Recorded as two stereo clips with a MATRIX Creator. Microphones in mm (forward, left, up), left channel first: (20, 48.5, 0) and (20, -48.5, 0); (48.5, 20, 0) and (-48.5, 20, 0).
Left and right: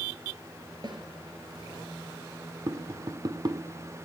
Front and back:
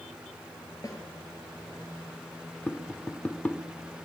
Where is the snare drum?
50° right, 4.5 m.